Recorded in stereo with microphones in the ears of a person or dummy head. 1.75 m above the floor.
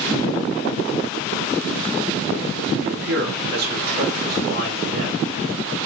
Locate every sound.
2.8 s a man speaking: 65° right (ahead or behind), 1.5 m; by 5.2 s 50° right (ahead or behind), 3 m